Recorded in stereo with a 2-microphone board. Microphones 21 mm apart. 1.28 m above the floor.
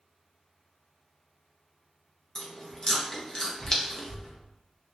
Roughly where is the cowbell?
I don't hear a cowbell.